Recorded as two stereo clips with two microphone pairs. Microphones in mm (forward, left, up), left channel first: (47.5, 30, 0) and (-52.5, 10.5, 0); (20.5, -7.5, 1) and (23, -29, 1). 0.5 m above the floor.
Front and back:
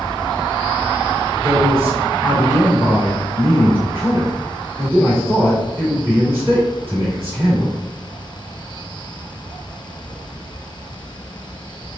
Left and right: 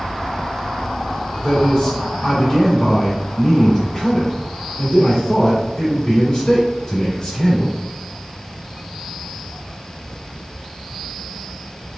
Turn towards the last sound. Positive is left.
turn(degrees=130)